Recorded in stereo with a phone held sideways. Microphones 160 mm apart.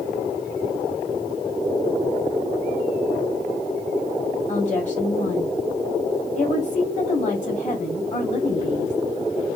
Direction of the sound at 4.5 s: 50° left (ahead or behind).